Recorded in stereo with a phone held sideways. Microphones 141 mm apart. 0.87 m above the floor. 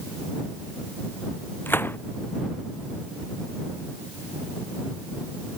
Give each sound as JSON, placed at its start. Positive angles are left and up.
{"t": 1.7, "sound": "a gunshot", "side_deg": 15}